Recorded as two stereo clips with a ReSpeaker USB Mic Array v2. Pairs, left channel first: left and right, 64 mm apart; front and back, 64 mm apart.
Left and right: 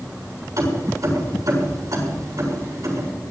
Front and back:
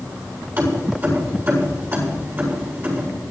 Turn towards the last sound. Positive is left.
turn(degrees=-125)